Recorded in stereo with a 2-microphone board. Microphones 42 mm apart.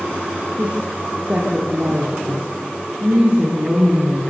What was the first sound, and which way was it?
A woman speaking, 30° right (ahead or behind).